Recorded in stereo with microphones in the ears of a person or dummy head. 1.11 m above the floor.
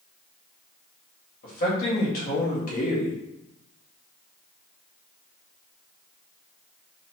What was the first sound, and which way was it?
A man speaking, 55° left (ahead or behind).